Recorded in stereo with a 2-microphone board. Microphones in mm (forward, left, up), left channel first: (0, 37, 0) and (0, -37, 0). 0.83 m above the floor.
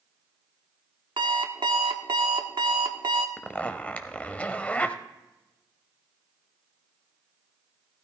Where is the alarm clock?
80° right, 1.0 m.